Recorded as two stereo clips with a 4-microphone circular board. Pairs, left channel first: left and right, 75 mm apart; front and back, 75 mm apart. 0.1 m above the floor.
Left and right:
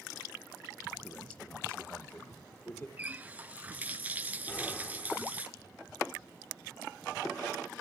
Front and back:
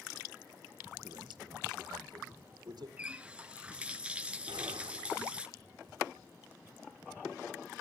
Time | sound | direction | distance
1.0 | a man speaking | 165° left | 4 m
3.0 | a running tap | 125° right | 0.8 m
4.5 | an explosion | 160° left | 3 m